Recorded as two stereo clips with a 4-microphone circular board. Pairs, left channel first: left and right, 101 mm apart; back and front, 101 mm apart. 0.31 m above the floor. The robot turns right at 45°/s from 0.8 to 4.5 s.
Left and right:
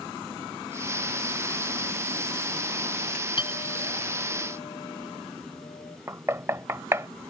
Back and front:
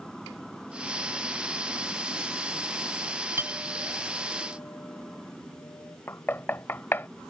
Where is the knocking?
125° right.